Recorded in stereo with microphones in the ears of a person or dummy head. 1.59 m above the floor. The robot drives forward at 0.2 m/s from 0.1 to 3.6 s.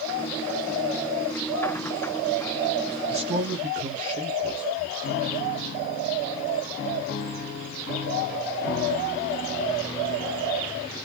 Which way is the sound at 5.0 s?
60° left (ahead or behind).